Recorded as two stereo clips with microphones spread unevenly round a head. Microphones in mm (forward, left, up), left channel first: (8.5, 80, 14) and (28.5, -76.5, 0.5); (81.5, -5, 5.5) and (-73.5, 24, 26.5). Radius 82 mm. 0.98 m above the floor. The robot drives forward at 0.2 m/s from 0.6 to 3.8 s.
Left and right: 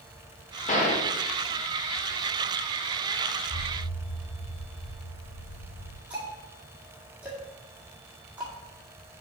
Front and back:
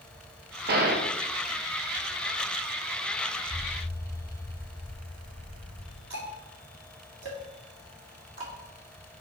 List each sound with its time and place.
0.7 s a gunshot: 145° left, 1.3 m
3.5 s an explosion: 90° left, 0.7 m; by 6.0 s 95° left, 0.7 m
6.1 s ticking: 165° right, 2 m